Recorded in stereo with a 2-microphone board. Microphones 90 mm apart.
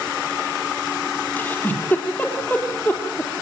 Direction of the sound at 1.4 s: 20° left (ahead or behind).